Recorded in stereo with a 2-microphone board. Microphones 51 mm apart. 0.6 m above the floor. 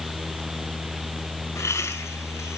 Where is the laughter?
70° left (ahead or behind), 4.5 m.